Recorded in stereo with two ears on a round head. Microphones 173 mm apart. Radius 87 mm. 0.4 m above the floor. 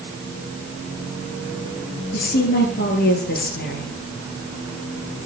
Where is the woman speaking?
55° left (ahead or behind), 7.5 m.